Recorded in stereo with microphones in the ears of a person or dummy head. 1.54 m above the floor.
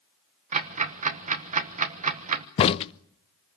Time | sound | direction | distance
0.5 | ticking | 40° right (ahead or behind) | 1.2 m
2.6 | a crack | 30° left (ahead or behind) | 0.5 m